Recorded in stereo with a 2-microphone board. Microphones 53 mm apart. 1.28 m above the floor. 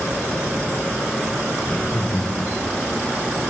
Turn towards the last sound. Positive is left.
turn(degrees=25)  # may be behind; listen again after turning